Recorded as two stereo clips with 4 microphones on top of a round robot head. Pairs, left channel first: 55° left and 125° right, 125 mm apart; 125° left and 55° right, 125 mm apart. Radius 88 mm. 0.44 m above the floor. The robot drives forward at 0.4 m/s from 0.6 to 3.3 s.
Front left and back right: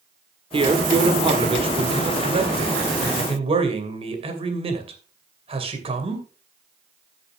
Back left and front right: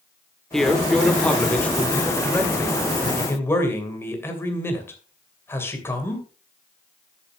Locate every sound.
0.5 s a man speaking: 145° right, 1.7 m; by 6.2 s 165° right, 2.5 m